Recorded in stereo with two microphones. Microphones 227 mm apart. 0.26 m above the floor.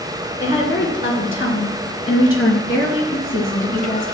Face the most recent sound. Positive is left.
turn(degrees=60)  # may be behind; listen again after turning